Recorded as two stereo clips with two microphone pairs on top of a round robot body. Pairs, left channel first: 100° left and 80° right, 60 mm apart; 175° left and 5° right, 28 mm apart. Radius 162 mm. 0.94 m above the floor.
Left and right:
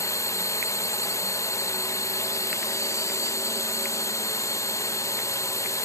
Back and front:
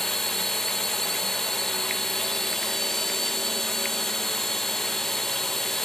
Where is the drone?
100° left.